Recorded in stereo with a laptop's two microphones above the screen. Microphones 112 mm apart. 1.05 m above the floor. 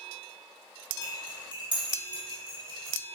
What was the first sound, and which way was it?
Cutlery clinking, 45° right (ahead or behind).